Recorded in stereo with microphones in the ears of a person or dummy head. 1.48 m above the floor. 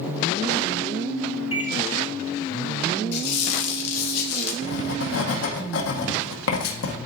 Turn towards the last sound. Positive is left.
turn(degrees=75)  # may be behind; listen again after turning